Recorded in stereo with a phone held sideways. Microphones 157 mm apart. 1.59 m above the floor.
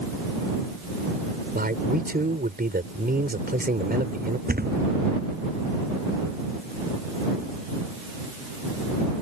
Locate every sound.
1.6 s a man speaking: 75° right (ahead or behind)
4.5 s a thud: 75° right (ahead or behind)